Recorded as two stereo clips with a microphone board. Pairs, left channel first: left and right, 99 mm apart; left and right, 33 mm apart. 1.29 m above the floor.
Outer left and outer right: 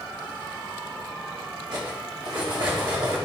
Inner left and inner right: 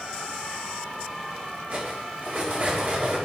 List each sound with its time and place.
1.7 s cutlery clinking: 60° right (ahead or behind), 3 m